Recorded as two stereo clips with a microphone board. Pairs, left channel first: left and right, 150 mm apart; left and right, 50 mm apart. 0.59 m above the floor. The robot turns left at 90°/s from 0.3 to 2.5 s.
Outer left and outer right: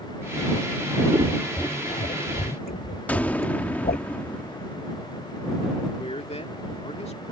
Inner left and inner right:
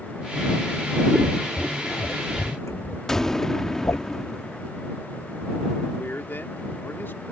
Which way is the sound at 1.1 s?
30° right (ahead or behind).